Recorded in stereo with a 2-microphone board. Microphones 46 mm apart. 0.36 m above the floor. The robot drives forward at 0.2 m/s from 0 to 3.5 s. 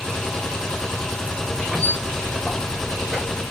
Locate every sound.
1.7 s a squeak: 10° right (ahead or behind), 1.0 m; by 3.4 s 5° right (ahead or behind), 1.3 m